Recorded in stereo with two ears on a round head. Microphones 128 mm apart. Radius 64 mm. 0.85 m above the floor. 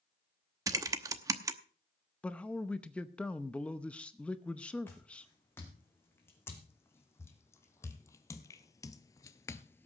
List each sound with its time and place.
0.7 s typing on a keyboard: 25° right (ahead or behind), 0.9 m
2.2 s a man speaking: 10° left (ahead or behind), 0.7 m
4.9 s footsteps: 15° left (ahead or behind), 4.5 m